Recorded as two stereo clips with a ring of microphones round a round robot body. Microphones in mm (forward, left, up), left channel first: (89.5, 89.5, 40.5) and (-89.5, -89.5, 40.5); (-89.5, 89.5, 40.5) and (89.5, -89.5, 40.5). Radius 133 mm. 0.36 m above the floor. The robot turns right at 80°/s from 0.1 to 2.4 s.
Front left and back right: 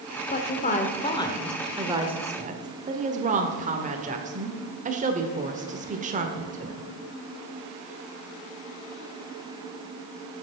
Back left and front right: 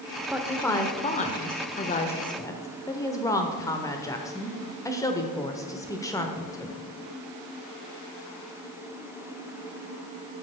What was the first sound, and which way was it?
A woman speaking, 30° left.